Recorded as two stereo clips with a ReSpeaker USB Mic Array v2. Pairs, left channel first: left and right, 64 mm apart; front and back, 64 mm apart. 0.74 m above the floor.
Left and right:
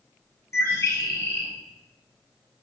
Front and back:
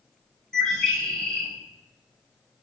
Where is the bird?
75° left, 0.9 m.